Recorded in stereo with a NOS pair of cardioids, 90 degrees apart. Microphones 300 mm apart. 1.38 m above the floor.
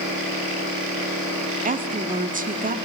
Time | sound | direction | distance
1.6 | a woman speaking | 25° right | 3 m